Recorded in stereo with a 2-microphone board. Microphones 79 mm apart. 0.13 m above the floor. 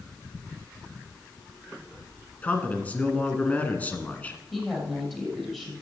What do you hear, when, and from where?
2.4 s a man speaking: 20° left (ahead or behind), 1.5 m
4.5 s a woman speaking: 10° left (ahead or behind), 4 m